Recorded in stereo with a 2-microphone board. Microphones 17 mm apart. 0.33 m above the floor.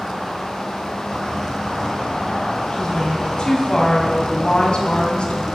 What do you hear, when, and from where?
2.7 s a woman speaking: 45° left (ahead or behind), 1.6 m; by 5.5 s 60° left (ahead or behind), 1.9 m